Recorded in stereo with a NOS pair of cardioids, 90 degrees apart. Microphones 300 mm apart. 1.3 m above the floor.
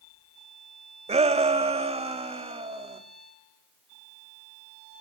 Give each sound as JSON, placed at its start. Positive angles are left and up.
{"t": 1.1, "sound": "a shout", "azimuth_deg": -20, "distance_m": 1.6}